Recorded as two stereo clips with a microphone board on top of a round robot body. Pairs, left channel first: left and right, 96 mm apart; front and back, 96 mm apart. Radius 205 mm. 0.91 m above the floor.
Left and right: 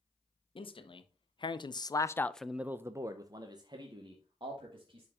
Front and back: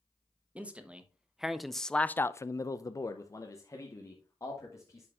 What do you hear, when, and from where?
0.6 s a man speaking: 105° left, 1.2 m; by 5.1 s 60° right, 1.8 m